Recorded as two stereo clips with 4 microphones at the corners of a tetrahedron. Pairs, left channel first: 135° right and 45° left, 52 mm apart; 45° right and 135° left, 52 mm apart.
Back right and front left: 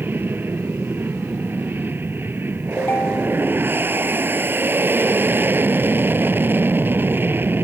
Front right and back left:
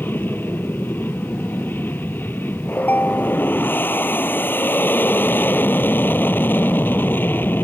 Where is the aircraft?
Straight ahead.